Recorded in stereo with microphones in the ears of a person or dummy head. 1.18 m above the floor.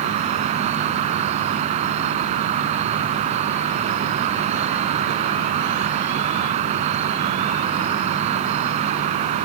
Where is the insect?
35° right (ahead or behind).